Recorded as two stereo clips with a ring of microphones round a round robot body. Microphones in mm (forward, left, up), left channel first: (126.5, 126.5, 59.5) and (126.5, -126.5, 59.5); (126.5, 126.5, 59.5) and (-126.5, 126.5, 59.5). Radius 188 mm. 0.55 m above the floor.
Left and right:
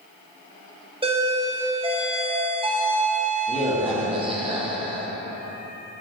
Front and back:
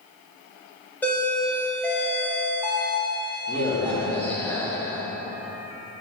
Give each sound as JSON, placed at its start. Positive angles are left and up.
{"t": 1.0, "sound": "a doorbell", "azimuth_deg": -75, "distance_m": 1.3}